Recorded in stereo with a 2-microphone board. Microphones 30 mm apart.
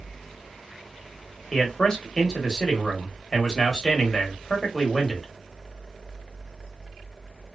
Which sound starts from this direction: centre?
A man speaking, at 1.5 s.